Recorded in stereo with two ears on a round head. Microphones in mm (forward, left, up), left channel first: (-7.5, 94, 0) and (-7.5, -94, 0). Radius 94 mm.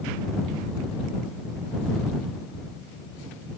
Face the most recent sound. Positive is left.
No sound to turn to.